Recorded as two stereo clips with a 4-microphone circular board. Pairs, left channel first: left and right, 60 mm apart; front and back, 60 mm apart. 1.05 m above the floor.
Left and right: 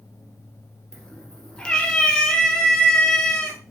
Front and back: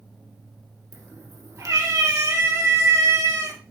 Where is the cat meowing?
165° left, 1.9 m.